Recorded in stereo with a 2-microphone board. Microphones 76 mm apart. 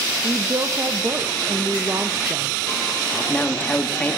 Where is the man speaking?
20° left (ahead or behind), 1.4 m.